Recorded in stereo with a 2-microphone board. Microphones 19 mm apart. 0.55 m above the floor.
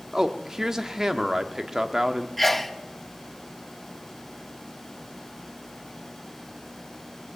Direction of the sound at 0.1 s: 25° right (ahead or behind).